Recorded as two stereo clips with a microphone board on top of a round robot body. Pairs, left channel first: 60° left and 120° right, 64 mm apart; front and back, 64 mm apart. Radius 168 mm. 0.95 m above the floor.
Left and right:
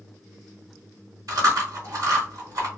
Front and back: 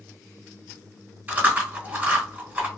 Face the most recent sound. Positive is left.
turn(degrees=-120)